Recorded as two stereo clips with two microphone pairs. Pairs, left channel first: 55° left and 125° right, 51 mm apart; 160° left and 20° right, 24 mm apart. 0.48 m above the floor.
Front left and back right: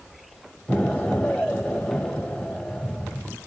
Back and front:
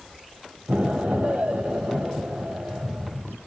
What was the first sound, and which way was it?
An explosion, 20° right.